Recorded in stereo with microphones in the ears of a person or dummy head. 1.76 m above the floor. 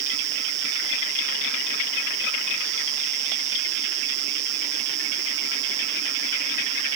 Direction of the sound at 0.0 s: 35° right (ahead or behind).